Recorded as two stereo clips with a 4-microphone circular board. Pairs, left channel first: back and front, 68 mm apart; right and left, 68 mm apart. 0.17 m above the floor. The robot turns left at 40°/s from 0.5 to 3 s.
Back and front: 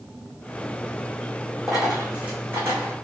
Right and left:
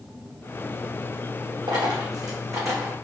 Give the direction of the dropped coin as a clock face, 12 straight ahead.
9 o'clock.